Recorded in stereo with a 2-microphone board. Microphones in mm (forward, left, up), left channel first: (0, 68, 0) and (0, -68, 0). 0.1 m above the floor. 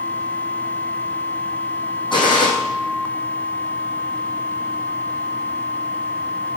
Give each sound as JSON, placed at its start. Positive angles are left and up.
{"t": 2.1, "sound": "a gunshot", "side_deg": 35, "distance_m": 3.5}